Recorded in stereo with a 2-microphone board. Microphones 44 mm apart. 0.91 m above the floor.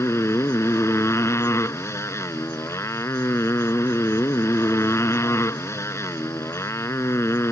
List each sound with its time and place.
0.0 s a motorcycle: 80° left